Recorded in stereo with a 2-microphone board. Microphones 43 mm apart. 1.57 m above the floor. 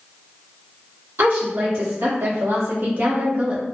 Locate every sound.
1.2 s a woman speaking: 85° right, 1.4 m; by 3.6 s 25° right (ahead or behind), 0.7 m